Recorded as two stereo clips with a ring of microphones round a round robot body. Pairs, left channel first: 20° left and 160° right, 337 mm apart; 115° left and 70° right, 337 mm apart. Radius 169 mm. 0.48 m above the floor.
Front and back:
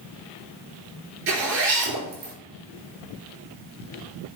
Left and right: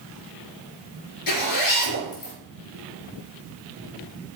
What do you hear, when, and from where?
1.3 s a zipper: 145° left, 3.5 m